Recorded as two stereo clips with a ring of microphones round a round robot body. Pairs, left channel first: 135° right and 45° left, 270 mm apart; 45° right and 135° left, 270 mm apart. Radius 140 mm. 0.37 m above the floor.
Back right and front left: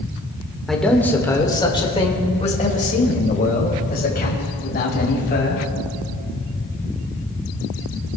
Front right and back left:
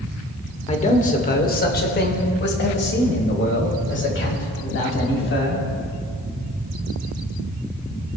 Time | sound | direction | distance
0.7 | a man speaking | 45° right | 1.5 m